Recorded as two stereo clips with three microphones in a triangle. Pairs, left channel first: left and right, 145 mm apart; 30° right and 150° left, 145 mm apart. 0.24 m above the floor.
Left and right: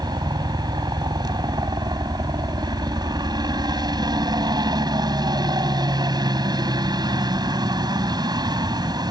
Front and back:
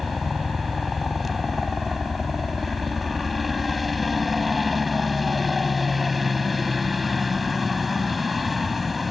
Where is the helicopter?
120° right.